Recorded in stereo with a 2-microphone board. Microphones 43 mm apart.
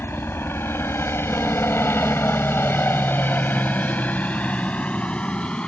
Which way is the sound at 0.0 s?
60° left (ahead or behind).